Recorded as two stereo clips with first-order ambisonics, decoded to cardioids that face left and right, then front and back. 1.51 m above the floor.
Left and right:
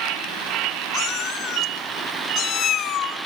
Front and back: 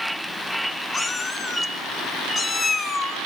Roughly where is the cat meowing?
Ahead left.